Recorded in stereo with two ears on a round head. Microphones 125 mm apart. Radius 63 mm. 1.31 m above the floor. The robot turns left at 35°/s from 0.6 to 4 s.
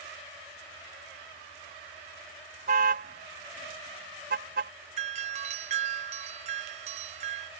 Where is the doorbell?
50° right (ahead or behind).